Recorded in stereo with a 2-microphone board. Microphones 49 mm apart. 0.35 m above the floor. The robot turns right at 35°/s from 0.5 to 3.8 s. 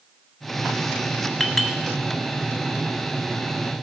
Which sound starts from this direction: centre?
A clink, at 1.4 s.